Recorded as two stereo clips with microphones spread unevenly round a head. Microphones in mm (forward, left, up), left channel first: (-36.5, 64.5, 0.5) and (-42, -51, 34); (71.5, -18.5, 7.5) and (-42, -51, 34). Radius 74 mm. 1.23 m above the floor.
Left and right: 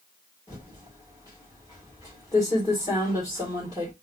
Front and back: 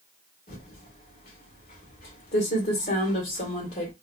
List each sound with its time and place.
0.5 s typing on a keyboard: 15° left, 1.7 m